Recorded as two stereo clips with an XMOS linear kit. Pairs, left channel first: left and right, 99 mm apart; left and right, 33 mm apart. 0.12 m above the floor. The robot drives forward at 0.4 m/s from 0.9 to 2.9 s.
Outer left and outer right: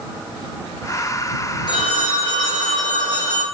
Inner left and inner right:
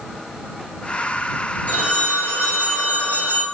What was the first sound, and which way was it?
A phone ringing, 50° left (ahead or behind).